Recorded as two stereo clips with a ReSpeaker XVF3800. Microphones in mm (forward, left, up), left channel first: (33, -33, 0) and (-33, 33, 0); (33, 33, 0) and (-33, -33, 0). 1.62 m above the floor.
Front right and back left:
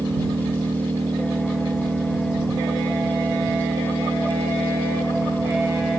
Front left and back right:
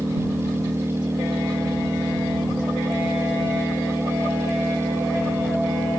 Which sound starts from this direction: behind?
An engine running, at 0.0 s.